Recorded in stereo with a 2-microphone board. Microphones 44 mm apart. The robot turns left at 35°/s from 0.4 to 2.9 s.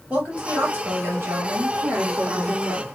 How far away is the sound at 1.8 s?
About 2.5 m.